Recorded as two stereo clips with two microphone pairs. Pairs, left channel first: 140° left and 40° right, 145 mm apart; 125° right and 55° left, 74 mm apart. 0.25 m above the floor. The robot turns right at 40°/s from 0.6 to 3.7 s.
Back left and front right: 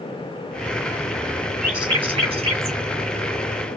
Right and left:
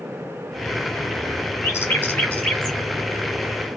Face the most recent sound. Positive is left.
turn(degrees=-5)